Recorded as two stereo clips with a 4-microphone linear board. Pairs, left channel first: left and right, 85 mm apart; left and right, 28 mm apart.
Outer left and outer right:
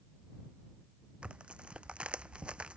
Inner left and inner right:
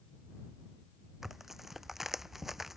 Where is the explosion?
No explosion in this recording.